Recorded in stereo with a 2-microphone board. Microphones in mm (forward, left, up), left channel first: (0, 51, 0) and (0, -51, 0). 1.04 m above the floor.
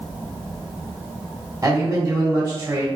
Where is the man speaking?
30° right (ahead or behind), 1.2 m.